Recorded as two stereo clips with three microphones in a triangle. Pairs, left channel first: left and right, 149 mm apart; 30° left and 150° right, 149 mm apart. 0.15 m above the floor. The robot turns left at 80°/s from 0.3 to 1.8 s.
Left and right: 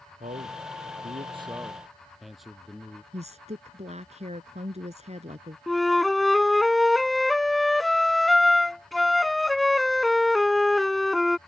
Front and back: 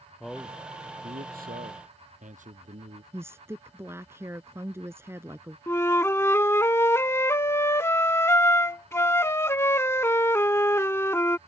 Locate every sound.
0.2 s a man speaking: 60° right; by 3.0 s straight behind
3.1 s a woman speaking: 85° right
5.7 s a flute: straight ahead